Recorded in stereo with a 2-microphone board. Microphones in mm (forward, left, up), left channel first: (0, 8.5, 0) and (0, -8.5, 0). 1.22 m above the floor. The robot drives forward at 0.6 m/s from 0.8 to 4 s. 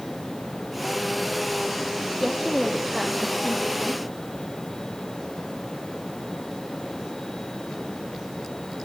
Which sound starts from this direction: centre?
A woman speaking, at 2.2 s.